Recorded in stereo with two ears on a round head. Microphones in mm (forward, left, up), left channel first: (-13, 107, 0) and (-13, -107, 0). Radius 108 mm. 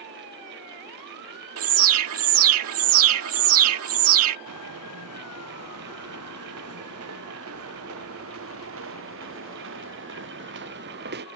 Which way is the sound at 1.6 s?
65° right (ahead or behind).